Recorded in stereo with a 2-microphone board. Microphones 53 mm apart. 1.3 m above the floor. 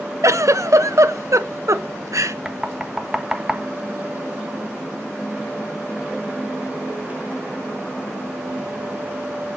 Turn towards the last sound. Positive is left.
turn(degrees=-5)  # may be behind; listen again after turning